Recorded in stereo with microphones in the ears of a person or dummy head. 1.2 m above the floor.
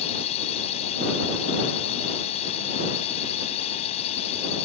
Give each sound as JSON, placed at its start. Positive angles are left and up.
{"t": 0.0, "sound": "a drone", "side_deg": 35}